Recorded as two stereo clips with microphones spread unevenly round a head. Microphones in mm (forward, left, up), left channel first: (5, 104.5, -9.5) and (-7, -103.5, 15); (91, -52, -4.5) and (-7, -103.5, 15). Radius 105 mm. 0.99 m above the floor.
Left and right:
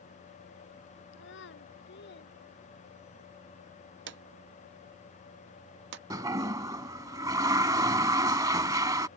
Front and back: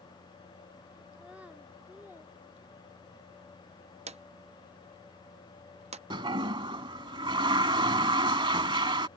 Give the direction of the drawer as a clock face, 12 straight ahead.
4 o'clock.